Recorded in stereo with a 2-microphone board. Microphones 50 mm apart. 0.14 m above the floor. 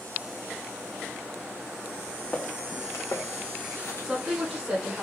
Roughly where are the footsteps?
Centre.